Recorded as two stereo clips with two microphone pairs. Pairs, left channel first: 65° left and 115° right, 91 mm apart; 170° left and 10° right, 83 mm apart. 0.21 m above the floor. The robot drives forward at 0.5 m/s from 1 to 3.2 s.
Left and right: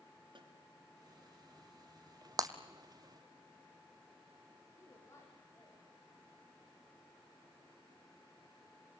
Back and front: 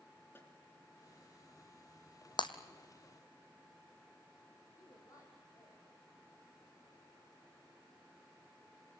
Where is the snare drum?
130° right, 3 m.